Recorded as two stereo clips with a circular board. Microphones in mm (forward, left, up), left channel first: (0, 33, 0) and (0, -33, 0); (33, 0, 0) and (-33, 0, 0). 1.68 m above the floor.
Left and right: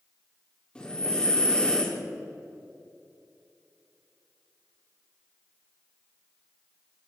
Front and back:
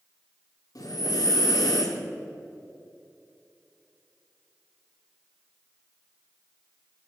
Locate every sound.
0.8 s breathing: 15° left, 3 m